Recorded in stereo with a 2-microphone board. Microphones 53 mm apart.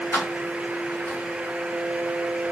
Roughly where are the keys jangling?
Left.